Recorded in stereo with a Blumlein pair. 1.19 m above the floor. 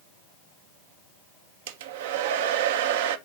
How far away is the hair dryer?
About 0.7 m.